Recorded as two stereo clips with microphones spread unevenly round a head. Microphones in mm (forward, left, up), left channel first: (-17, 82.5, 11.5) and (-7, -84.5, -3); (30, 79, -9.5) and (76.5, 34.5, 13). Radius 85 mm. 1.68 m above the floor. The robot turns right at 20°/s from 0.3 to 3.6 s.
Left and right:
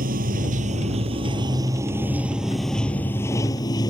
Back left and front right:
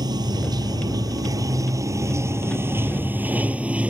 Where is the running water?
40° right; by 3.9 s 25° left.